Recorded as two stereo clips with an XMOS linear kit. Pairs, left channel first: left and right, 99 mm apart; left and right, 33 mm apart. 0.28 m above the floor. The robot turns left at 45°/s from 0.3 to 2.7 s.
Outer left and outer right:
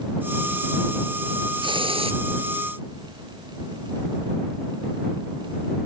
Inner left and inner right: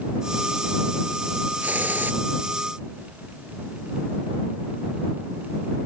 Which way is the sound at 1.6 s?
55° right (ahead or behind).